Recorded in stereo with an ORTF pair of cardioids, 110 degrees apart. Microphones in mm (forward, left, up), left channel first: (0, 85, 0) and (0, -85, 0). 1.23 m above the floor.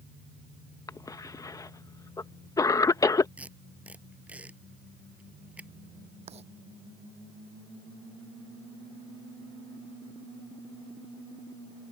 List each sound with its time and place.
0.9 s a cough: 20° left
3.4 s tape being pulled: 10° right
6.3 s writing: 40° right